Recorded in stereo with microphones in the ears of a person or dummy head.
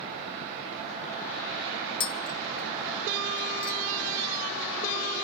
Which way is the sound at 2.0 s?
25° left (ahead or behind).